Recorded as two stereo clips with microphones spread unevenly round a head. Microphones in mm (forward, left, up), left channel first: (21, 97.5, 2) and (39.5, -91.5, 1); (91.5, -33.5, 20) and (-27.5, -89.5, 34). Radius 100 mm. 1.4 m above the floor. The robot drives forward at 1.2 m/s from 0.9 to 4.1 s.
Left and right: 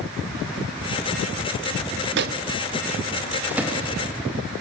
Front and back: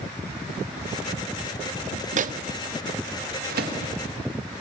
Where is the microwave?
125° right, 0.5 m; by 3.8 s 170° right, 2.5 m.